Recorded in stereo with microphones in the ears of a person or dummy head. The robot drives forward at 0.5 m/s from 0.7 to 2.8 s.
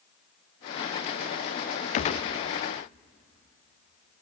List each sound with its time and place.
1.9 s a gunshot: 35° left (ahead or behind), 0.5 m; by 2.3 s 30° left (ahead or behind), 0.7 m